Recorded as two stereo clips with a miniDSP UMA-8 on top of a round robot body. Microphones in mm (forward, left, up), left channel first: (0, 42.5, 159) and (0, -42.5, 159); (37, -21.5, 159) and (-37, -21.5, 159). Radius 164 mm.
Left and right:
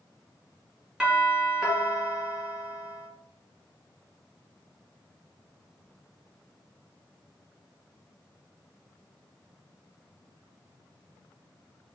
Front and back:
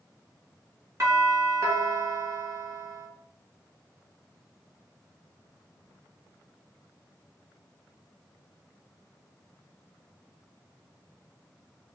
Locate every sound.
1.0 s a doorbell: 170° right, 1.9 m